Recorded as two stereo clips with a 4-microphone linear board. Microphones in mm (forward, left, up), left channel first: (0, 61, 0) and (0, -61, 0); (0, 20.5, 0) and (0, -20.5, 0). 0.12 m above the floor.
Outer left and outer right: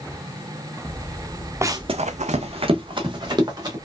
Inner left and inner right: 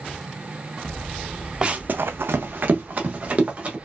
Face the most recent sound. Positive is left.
turn(degrees=-35)  # may be behind; listen again after turning